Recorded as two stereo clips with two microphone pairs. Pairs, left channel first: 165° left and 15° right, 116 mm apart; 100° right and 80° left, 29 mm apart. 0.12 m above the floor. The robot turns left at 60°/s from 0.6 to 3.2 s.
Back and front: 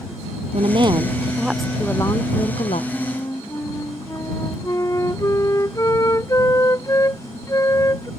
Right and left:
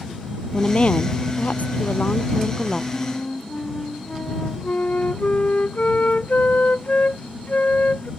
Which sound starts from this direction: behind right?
A flute, at 2.9 s.